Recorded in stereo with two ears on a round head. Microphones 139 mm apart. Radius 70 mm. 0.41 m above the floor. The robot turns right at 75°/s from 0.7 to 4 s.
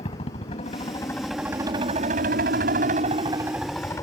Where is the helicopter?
135° left; by 4.0 s 20° left.